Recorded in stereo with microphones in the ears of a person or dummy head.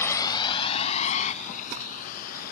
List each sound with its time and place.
0.0 s a vehicle: 15° left (ahead or behind); by 2.5 s 50° left (ahead or behind)